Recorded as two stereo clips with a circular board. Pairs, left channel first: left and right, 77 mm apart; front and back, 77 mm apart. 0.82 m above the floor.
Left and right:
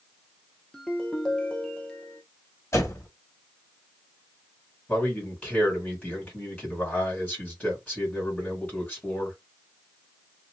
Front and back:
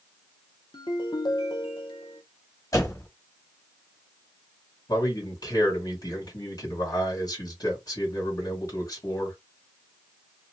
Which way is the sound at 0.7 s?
10° left.